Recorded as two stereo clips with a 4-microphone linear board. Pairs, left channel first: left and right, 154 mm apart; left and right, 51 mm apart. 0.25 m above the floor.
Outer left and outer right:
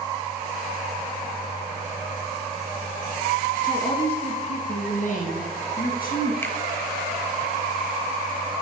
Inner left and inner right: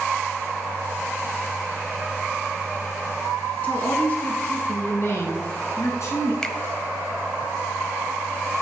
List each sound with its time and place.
3.6 s a woman speaking: 30° left (ahead or behind), 2.5 m; by 6.3 s 65° left (ahead or behind), 3 m
6.4 s a finger snap: 15° left (ahead or behind), 0.8 m